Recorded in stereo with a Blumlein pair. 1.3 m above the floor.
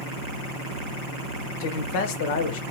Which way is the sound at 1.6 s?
50° left.